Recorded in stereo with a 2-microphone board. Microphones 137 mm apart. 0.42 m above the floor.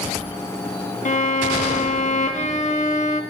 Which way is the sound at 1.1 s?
55° left (ahead or behind).